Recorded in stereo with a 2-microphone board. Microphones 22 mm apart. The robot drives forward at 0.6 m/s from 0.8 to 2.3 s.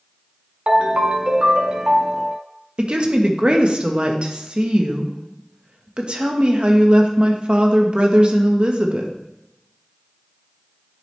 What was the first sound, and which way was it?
A ringtone, 60° right (ahead or behind).